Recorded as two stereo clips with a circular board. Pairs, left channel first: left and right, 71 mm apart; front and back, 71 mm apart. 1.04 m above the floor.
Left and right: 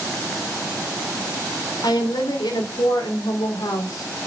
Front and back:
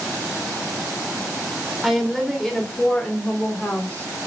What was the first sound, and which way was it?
A woman speaking, 90° left.